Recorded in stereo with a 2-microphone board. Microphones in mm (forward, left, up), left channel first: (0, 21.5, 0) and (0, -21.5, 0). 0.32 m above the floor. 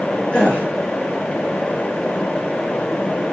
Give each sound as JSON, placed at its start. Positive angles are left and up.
{"t": 0.3, "sound": "a gasp", "side_deg": 25, "distance_m": 3.5}